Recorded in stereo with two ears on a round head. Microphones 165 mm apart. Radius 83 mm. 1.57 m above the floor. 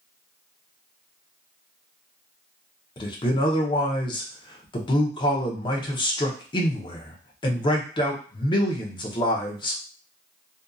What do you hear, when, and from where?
3.0 s a man speaking: 25° left (ahead or behind), 0.7 m